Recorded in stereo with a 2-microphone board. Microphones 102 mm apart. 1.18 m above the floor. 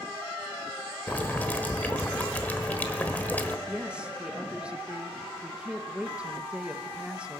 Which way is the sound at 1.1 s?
15° left (ahead or behind).